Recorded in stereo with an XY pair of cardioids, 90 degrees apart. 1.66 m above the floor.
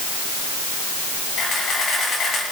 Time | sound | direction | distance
1.4 | a camera shutter | 60° left | 10 m